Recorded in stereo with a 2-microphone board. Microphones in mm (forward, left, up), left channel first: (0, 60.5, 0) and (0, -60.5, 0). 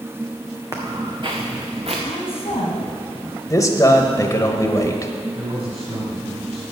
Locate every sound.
0.7 s footsteps: 30° right (ahead or behind), 1.6 m; by 1.9 s 60° right (ahead or behind), 2 m
2.0 s a woman speaking: 60° left (ahead or behind), 2 m
3.5 s a man speaking: 25° left (ahead or behind), 1.1 m
5.3 s a man speaking: 55° right (ahead or behind), 2.5 m